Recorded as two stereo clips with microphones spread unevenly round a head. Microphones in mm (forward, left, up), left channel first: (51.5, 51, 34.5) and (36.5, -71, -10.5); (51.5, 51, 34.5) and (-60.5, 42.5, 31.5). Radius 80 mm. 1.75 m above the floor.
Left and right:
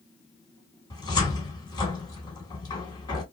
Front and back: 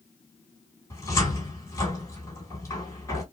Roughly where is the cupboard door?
Ahead left.